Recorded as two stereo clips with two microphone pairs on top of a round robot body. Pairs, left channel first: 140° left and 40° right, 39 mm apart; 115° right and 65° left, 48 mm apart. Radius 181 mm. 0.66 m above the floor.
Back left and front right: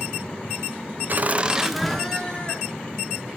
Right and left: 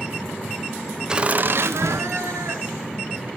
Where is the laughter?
15° right, 1.0 m; by 3.3 s 80° left, 3 m.